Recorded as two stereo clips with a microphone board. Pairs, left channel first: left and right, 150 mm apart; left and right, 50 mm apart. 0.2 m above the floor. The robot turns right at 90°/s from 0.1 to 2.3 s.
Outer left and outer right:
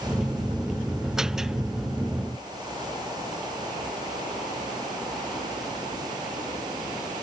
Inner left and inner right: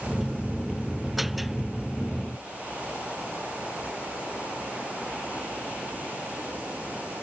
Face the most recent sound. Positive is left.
No sound to turn to.